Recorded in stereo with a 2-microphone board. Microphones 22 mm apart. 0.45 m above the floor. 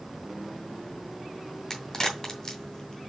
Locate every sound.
1.7 s a crack: 25° left (ahead or behind), 2 m